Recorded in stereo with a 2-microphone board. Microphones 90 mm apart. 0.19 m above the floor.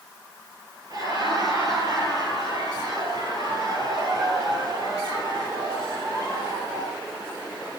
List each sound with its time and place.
0.9 s laughter: 40° right (ahead or behind), 5 m